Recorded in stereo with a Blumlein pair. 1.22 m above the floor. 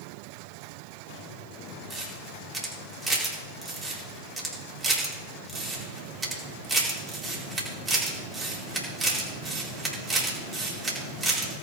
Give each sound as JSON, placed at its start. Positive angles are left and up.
{"t": 1.9, "sound": "a camera shutter", "azimuth_deg": -15, "distance_m": 4.0}